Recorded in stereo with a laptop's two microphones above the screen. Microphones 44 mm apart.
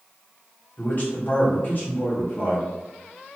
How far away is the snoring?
I don't hear snoring.